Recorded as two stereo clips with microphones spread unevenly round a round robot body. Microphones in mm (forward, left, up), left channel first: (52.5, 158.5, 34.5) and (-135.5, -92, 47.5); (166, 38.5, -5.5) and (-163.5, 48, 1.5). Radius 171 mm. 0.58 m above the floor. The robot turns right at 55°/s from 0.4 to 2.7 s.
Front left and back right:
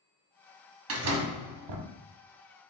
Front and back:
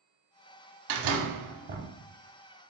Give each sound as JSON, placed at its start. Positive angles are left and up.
{"t": 0.9, "sound": "a door slam", "azimuth_deg": -170, "distance_m": 0.8}